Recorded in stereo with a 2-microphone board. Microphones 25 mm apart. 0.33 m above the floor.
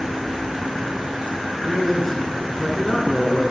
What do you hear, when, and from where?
1.6 s a man speaking: centre (ahead or behind), 3.5 m